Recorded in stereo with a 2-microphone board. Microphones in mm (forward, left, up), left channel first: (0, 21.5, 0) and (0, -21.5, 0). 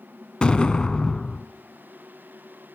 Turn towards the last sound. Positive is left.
turn(degrees=20)  # may be behind; listen again after turning